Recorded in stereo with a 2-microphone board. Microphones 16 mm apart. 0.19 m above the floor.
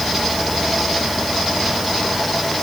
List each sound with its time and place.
Only background noise.